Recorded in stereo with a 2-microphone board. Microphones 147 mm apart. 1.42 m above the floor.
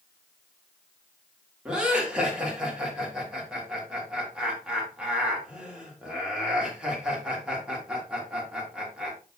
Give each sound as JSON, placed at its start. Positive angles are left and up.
{"t": 1.6, "sound": "laughter", "side_deg": -5, "distance_m": 3.0}